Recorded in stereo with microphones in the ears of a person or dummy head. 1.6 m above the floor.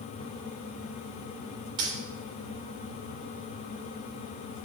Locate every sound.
1.8 s a dropped coin: 25° right (ahead or behind), 2 m